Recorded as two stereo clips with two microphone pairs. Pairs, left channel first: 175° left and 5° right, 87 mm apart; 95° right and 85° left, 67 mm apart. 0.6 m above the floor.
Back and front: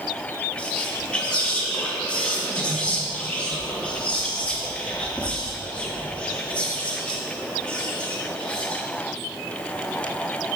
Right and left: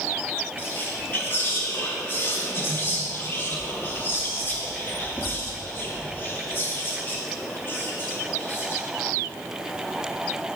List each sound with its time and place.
0.6 s whispering: 120° right, 0.7 m